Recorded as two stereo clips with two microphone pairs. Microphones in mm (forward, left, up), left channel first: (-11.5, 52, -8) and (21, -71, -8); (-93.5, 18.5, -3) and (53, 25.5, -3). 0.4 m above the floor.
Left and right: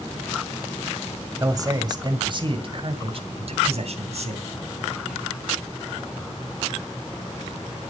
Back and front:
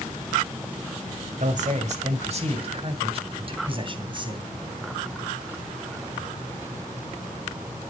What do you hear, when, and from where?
1.4 s a man speaking: 15° right, 1.8 m; by 4.5 s 55° right, 3 m